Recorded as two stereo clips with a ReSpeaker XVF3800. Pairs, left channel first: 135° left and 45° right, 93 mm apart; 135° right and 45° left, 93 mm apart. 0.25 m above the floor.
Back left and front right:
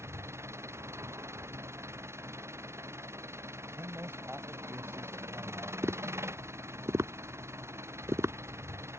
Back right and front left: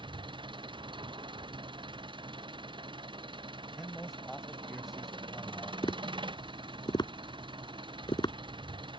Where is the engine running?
15° left.